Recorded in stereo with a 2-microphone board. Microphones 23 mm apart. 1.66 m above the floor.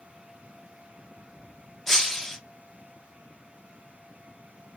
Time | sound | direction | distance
1.9 | breaking glass | 20° left (ahead or behind) | 0.8 m